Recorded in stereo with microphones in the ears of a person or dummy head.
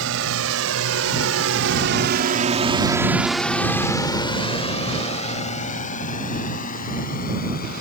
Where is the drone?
85° right; by 7.8 s 45° left (ahead or behind).